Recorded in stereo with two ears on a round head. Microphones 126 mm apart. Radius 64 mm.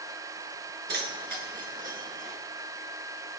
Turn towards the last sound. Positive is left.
turn(degrees=-55)  # may be behind; listen again after turning